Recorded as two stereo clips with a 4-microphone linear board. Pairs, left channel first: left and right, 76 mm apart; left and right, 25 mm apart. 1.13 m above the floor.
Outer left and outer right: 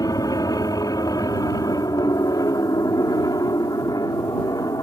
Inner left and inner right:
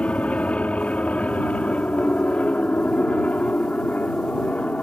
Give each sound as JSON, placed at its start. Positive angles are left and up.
{"t": 0.0, "sound": "an aircraft", "side_deg": 60}